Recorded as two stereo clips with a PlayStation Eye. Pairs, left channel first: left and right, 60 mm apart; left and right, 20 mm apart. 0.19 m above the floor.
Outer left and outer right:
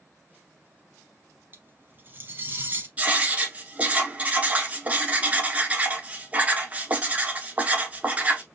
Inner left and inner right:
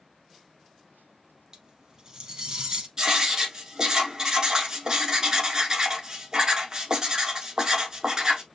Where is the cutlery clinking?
35° right (ahead or behind), 0.9 m.